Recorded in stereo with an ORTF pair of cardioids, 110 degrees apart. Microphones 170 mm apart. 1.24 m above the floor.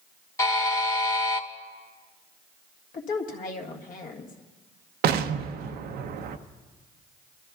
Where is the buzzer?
20° left, 1.4 m.